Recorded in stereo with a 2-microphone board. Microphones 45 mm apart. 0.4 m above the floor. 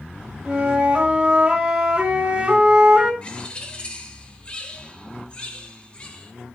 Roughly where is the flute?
Right.